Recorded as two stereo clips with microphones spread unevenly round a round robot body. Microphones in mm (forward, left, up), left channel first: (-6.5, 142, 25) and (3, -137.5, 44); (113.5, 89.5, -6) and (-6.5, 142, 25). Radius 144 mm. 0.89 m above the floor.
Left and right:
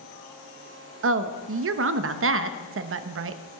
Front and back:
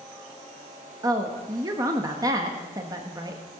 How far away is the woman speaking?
About 1.2 m.